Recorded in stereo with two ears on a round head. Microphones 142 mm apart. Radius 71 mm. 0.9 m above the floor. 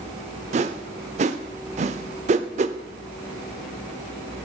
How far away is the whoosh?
About 0.7 m.